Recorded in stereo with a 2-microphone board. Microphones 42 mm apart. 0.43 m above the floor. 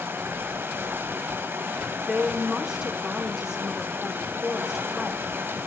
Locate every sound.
0.0 s running water: 65° right (ahead or behind), 0.9 m
2.0 s a woman speaking: 15° right (ahead or behind), 0.9 m